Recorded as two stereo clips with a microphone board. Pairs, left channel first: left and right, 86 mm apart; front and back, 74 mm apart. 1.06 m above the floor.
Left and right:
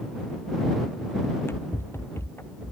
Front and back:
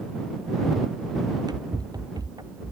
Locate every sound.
1.3 s running footsteps: 155° left; by 2.7 s 150° left